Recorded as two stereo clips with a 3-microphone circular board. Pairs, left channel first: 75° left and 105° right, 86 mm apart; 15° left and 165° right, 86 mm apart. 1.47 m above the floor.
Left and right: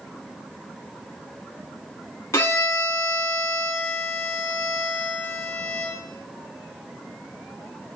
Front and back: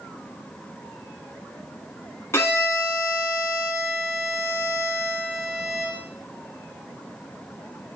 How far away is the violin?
About 1.0 m.